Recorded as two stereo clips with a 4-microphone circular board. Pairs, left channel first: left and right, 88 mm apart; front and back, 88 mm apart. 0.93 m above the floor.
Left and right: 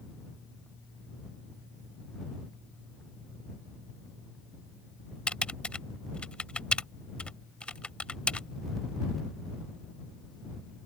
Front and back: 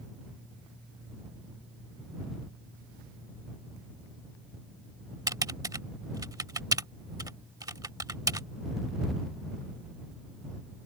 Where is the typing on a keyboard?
165° left.